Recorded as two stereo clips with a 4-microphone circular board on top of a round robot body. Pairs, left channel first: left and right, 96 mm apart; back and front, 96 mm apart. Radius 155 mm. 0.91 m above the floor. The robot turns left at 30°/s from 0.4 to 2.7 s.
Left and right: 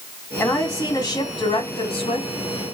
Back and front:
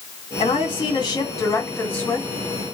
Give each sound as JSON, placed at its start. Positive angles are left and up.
{"t": 0.4, "sound": "a woman speaking", "azimuth_deg": 155, "distance_m": 2.0}